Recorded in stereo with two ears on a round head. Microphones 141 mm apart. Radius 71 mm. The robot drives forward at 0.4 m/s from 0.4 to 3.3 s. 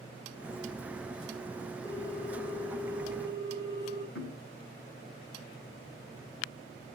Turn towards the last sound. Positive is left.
turn(degrees=80)